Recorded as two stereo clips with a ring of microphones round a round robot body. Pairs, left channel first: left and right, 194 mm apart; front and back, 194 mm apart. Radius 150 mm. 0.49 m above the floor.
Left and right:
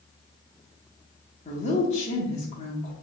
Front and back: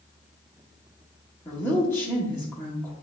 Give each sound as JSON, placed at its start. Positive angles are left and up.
{"t": 1.4, "sound": "a woman speaking", "azimuth_deg": 70, "distance_m": 1.1}